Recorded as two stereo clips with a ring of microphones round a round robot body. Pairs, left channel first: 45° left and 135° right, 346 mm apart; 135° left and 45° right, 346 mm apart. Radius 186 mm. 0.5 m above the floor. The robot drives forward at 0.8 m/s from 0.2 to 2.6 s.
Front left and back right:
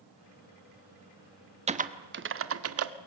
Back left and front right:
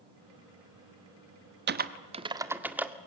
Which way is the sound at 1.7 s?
75° right.